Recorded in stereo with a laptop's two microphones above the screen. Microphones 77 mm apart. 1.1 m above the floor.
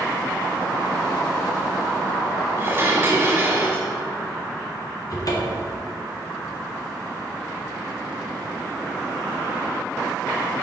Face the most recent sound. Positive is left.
turn(degrees=50)  # may be behind; listen again after turning